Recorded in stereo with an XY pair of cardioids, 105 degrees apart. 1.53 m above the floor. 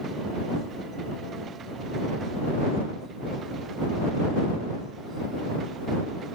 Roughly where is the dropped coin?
No dropped coin in this recording.